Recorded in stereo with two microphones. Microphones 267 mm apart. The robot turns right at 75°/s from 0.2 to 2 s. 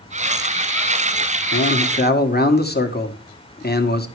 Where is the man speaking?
105° left, 1.5 m; by 4.1 s 140° left, 1.5 m.